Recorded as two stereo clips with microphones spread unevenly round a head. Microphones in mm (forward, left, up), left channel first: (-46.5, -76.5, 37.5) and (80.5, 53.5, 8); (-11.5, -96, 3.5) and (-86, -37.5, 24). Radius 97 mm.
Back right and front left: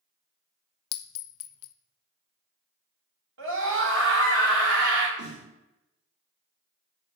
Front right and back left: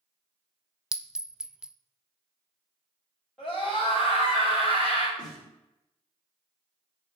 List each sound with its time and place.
0.9 s a clink: 135° right, 0.5 m
3.4 s a scream: 50° left, 4.5 m
5.2 s a snare drum: 80° left, 3.5 m